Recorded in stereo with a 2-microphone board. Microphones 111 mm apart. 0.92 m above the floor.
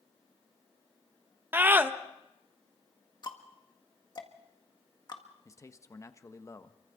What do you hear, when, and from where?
1.5 s a scream: 20° right (ahead or behind), 1.1 m
3.2 s ticking: 40° left (ahead or behind), 1.7 m
5.5 s a man speaking: 30° left (ahead or behind), 1.0 m